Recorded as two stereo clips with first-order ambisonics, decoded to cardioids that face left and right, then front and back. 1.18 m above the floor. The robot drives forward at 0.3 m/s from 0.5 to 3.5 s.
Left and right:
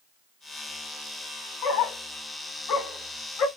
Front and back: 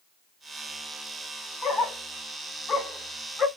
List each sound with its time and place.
1.6 s a dog barking: 65° left, 2.5 m; by 3.5 s 80° left, 2 m